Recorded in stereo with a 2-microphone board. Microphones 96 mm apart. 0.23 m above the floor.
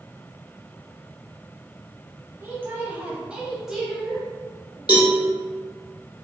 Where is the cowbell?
50° left (ahead or behind), 1.4 m.